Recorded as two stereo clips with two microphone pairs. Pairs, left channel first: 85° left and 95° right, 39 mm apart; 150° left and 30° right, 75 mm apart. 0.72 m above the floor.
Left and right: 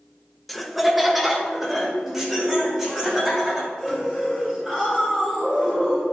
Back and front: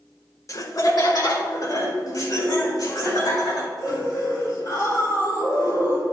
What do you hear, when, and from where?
0.5 s laughter: 175° left, 0.7 m; by 6.0 s 175° right, 8.5 m